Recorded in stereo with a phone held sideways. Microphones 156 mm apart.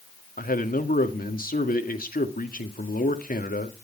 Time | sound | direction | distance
0.4 | a man speaking | 70° left (ahead or behind) | 2.0 m